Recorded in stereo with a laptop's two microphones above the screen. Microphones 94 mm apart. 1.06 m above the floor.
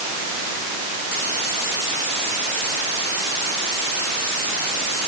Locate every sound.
Only background noise.